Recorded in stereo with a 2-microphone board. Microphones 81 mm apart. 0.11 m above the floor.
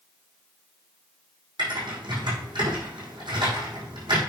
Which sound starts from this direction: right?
Typing on a keyboard, at 1.6 s.